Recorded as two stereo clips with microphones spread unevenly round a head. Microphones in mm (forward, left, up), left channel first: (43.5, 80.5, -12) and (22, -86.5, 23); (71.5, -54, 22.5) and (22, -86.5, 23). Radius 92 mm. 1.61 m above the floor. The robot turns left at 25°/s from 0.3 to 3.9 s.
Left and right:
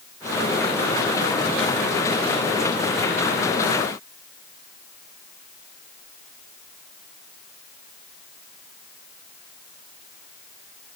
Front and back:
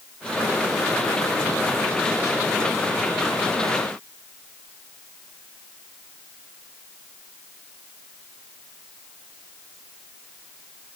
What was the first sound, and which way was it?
Only background noise.